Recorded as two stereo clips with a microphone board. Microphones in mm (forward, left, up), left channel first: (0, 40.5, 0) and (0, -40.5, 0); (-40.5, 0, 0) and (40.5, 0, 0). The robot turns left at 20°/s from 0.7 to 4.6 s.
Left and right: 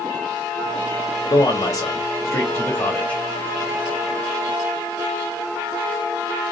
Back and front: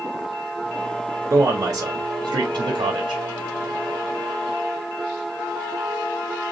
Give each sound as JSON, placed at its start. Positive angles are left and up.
{"t": 1.3, "sound": "a man speaking", "azimuth_deg": 50, "distance_m": 0.6}